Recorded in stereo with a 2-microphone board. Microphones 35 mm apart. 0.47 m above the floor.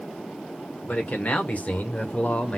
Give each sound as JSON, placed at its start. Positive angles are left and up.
{"t": 0.8, "sound": "a man speaking", "side_deg": 50, "distance_m": 1.5}